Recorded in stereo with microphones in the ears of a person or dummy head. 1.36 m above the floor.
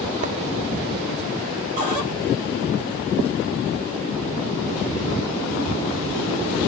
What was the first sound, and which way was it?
Writing, 40° right (ahead or behind).